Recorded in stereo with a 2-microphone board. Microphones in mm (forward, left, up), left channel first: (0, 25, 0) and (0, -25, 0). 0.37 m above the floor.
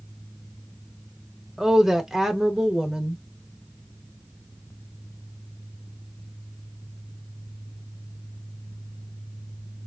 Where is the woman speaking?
10° right (ahead or behind), 0.9 m.